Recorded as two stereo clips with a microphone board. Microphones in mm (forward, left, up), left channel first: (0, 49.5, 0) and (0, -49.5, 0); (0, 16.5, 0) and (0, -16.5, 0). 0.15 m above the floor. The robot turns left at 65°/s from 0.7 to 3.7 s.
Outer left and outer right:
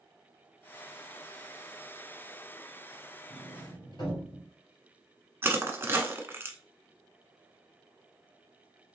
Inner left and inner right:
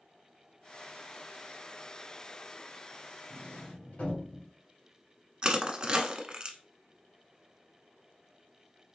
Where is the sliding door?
65° left (ahead or behind), 3 m; by 4.5 s 50° left (ahead or behind), 3 m.